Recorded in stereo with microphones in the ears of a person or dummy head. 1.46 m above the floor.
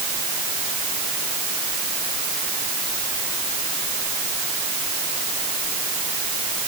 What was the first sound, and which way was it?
Only background noise.